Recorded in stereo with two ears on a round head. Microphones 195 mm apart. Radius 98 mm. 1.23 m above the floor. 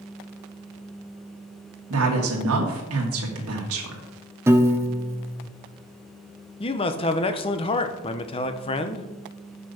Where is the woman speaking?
70° right (ahead or behind), 2 m.